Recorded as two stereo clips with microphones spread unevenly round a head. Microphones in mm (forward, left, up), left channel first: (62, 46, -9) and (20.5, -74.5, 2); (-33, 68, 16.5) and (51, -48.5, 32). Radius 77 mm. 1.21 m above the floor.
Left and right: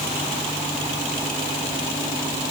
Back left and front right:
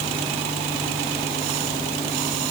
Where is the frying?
I don't hear frying.